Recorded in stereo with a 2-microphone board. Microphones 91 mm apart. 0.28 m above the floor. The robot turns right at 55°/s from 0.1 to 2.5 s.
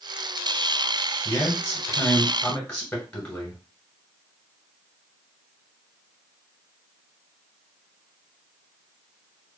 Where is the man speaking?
25° left (ahead or behind), 1.6 m; by 3.6 s 20° left (ahead or behind), 1.6 m.